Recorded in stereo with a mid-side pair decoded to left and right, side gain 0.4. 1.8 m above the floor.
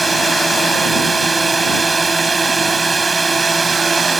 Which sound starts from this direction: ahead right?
A drone, at 0.0 s.